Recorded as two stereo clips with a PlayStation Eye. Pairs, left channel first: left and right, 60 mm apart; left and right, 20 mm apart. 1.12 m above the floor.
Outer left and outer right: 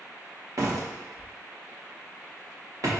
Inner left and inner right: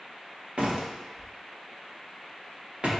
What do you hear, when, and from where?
0.6 s a door slam: 60° right (ahead or behind), 0.9 m